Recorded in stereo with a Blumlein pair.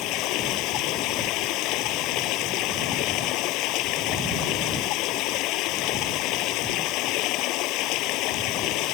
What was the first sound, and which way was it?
Running water, 40° left.